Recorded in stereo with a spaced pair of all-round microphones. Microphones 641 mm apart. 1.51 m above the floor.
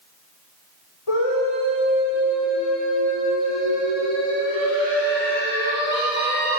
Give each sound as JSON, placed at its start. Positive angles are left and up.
{"t": 1.1, "sound": "a scream", "side_deg": 50, "distance_m": 6.5}